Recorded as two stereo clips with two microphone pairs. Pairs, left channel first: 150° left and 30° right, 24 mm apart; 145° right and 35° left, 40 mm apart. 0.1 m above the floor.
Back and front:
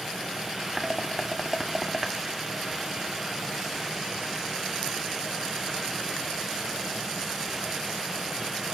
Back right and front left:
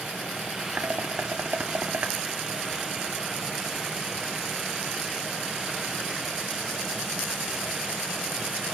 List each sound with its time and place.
0.8 s dishes clattering: 55° left, 1.2 m